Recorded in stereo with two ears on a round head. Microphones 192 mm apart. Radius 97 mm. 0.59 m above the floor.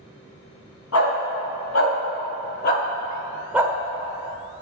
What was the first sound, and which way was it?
A dog barking, 75° left (ahead or behind).